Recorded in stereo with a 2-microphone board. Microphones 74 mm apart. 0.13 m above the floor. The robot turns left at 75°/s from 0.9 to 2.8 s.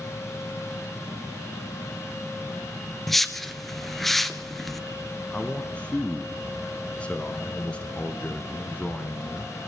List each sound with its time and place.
3.1 s a whoosh: centre (ahead or behind), 1.1 m
5.3 s a man speaking: 15° left (ahead or behind), 1.3 m